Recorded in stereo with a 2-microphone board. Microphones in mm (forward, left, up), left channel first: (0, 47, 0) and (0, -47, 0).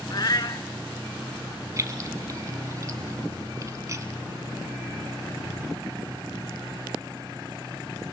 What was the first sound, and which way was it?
A cat meowing, 50° left (ahead or behind).